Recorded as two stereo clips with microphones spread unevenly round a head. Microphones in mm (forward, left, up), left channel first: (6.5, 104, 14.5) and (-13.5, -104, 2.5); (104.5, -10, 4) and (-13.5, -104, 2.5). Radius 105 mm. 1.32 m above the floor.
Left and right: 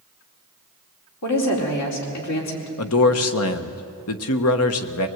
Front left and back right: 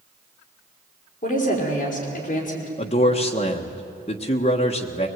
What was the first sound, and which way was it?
A woman speaking, 95° left.